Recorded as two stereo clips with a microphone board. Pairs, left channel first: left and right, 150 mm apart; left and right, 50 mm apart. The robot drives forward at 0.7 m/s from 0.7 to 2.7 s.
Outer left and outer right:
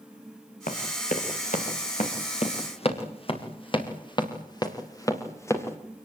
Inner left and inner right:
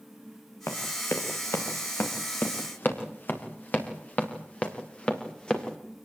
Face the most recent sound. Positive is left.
turn(degrees=15)  # may be behind; listen again after turning